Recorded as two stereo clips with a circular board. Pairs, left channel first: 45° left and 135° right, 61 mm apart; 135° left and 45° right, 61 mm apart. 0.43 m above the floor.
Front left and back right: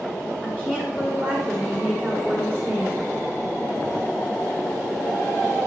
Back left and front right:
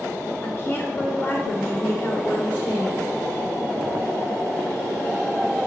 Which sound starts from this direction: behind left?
A woman speaking, at 0.4 s.